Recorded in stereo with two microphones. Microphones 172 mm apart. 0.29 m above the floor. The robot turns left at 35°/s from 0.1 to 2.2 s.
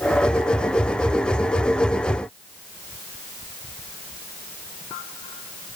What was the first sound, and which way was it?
Only background noise.